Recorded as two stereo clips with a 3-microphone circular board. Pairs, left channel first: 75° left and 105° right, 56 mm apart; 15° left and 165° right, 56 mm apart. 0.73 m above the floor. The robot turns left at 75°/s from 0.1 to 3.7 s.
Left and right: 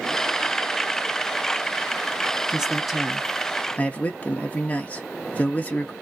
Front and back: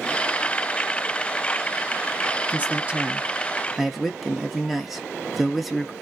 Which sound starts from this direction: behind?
A man speaking, at 2.5 s.